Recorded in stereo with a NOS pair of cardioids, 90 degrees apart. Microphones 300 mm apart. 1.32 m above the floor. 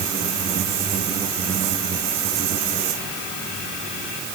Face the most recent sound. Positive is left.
No sound to turn to.